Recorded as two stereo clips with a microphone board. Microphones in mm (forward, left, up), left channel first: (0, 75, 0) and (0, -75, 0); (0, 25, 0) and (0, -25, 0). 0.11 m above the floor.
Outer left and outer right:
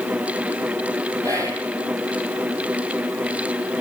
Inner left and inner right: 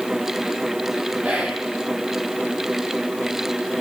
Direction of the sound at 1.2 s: 25° right (ahead or behind).